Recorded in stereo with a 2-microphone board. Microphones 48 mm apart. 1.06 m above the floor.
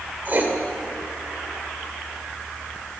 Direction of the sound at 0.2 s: 35° right (ahead or behind).